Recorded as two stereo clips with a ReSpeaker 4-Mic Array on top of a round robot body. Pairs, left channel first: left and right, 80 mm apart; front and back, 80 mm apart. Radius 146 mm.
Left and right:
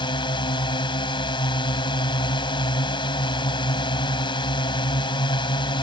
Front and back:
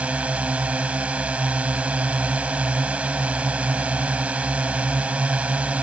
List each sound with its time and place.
0.0 s a drone: 105° left